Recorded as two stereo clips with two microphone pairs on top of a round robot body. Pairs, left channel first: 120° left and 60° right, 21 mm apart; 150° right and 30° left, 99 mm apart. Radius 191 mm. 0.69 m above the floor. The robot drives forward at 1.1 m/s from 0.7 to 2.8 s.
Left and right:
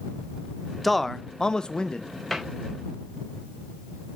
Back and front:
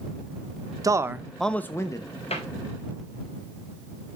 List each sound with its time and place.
0.8 s a man speaking: 30° left, 1.0 m; by 2.1 s 160° left, 1.2 m
2.3 s a cupboard door: 155° right, 4 m